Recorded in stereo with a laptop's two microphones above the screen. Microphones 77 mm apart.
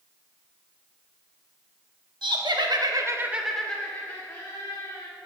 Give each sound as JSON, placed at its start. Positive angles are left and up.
{"t": 2.2, "sound": "laughter", "side_deg": -75, "distance_m": 1.5}